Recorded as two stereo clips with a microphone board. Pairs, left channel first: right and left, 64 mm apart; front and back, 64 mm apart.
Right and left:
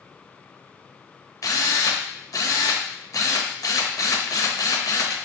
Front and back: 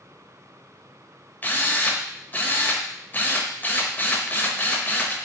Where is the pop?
No pop in this recording.